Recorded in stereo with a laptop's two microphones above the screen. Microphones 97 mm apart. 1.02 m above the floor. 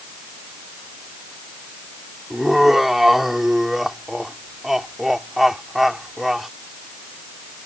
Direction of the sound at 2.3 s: 5° right (ahead or behind).